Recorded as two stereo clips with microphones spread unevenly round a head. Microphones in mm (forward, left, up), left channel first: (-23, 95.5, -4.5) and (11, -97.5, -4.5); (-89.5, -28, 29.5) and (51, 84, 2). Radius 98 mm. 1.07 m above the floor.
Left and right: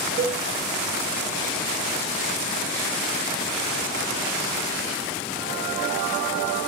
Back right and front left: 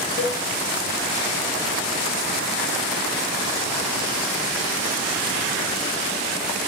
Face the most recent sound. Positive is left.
turn(degrees=-135)